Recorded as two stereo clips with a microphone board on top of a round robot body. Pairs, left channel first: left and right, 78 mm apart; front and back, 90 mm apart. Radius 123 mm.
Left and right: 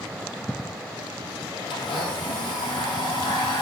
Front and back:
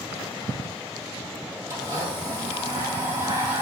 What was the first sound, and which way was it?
A blender, 115° left.